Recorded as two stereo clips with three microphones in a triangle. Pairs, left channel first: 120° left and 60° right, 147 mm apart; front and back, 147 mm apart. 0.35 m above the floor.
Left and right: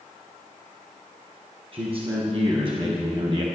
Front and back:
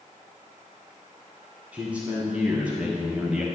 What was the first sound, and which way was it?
A man speaking, 100° right.